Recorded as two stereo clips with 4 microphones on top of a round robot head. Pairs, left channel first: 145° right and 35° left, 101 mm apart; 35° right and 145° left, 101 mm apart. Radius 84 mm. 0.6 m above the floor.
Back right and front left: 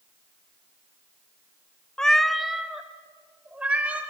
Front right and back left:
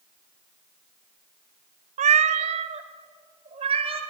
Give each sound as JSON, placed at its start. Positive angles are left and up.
{"t": 2.0, "sound": "a cat meowing", "azimuth_deg": 135, "distance_m": 0.5}